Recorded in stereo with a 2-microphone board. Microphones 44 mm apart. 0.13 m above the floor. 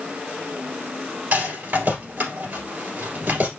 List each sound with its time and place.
1.3 s a rattle: 45° right (ahead or behind), 2.5 m